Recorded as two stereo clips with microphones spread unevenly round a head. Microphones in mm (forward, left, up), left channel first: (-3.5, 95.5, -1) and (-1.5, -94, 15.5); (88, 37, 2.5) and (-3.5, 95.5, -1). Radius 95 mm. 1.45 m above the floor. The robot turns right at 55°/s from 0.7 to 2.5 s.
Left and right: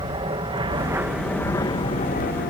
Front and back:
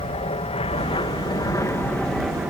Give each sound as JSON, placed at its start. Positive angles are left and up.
{"t": 0.0, "sound": "an aircraft", "azimuth_deg": -30}